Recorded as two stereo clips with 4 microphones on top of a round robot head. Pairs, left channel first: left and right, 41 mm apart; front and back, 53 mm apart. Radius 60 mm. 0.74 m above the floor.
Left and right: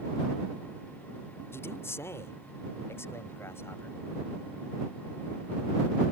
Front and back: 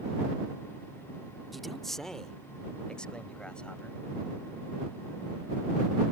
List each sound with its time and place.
1.5 s a man speaking: 90° left; by 4.0 s 75° left